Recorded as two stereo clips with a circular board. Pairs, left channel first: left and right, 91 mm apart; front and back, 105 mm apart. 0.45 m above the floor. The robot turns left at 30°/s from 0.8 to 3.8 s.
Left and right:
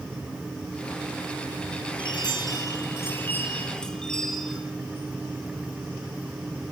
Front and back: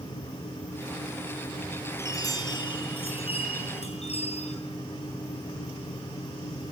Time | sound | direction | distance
2.0 | a chime | 60° left | 7.5 m